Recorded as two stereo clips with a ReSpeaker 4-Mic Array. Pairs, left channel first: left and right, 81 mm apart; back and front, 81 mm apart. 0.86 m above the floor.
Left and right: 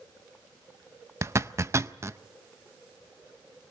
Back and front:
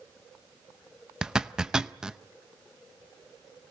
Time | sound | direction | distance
1.2 | a zipper | 75° right | 0.5 m